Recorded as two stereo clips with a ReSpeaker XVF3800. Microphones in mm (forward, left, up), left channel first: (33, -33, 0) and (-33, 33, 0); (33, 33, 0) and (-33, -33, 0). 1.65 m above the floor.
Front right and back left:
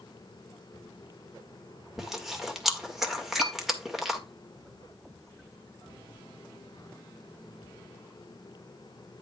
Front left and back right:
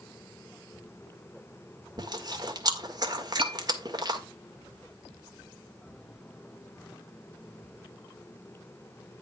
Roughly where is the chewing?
Behind right.